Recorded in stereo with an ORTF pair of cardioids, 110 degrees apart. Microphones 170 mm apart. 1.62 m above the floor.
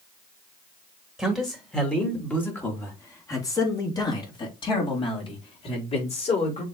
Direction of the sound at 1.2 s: Straight ahead.